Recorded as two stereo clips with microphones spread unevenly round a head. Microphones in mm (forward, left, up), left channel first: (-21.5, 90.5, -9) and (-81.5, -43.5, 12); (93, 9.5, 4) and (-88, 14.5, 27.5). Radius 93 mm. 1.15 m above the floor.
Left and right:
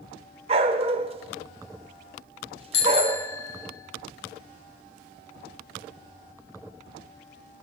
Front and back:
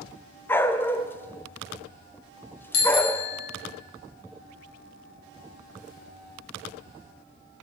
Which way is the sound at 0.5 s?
85° right.